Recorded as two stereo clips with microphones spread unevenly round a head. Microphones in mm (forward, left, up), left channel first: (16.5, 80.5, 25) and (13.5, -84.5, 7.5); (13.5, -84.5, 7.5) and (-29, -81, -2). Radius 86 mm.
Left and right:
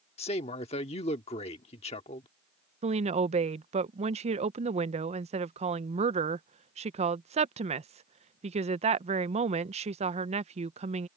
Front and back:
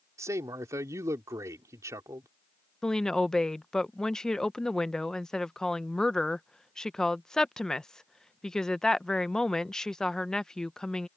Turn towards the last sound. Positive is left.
turn(degrees=-95)